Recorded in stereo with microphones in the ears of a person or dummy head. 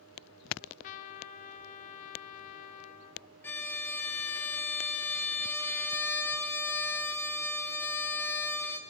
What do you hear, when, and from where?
0.6 s a trumpet: 40° left (ahead or behind), 0.6 m
3.4 s a violin: 15° left (ahead or behind), 0.9 m